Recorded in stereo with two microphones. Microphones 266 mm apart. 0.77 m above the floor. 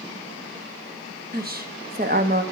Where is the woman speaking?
35° right (ahead or behind), 1.2 m.